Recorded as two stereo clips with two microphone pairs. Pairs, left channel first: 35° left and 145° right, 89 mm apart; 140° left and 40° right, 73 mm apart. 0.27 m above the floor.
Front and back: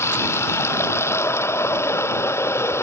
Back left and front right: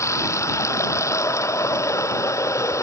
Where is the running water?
95° left.